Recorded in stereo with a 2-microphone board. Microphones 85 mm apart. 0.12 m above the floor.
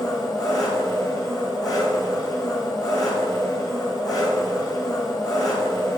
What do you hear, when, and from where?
0.0 s an engine running: 50° left (ahead or behind), 3.5 m